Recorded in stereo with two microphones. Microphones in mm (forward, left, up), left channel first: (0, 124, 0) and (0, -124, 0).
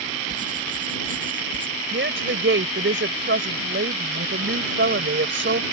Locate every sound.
0.3 s writing: 30° right (ahead or behind)
1.9 s a woman speaking: 50° right (ahead or behind)